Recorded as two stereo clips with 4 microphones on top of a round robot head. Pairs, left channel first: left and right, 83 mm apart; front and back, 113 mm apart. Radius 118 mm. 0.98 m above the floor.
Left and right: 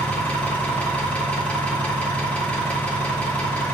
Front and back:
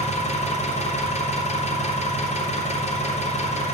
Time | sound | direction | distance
0.0 | an engine running | 15° left | 2.5 m